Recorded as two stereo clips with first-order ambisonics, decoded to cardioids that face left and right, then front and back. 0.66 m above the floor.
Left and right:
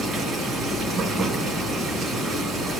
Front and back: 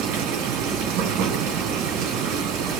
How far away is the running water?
About 4 m.